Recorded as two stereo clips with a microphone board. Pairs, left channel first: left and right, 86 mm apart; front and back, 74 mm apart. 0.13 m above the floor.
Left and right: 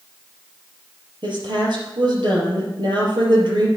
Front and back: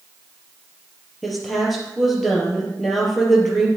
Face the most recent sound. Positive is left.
turn(degrees=-90)